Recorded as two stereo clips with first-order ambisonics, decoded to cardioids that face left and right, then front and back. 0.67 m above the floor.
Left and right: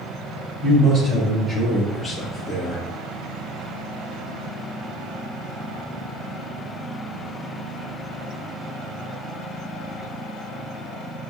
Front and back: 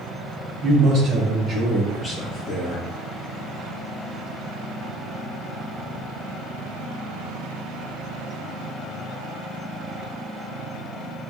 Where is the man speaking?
145° right, 1.6 m; by 2.8 s 15° left, 1.5 m.